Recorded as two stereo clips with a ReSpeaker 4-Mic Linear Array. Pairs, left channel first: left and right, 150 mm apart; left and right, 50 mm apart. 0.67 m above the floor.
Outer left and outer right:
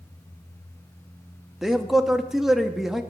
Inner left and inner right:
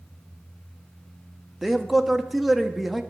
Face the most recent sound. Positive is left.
turn(degrees=0)  # may be behind; listen again after turning